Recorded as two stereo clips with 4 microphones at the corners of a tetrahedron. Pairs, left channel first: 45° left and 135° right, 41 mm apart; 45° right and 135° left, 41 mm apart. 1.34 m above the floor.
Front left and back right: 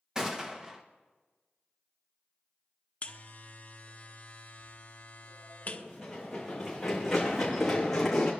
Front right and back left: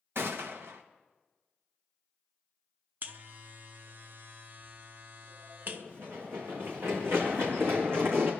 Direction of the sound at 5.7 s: 145° left.